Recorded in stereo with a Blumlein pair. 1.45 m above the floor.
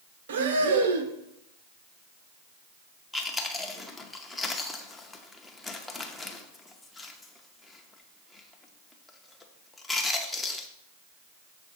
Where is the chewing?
10° left, 0.7 m.